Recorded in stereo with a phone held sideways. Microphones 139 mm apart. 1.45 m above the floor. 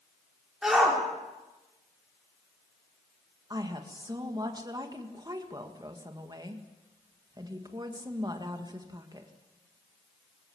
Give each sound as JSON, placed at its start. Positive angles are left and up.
{"t": 0.6, "sound": "a shout", "side_deg": -5, "distance_m": 5.0}
{"t": 3.5, "sound": "a woman speaking", "side_deg": -30, "distance_m": 2.0}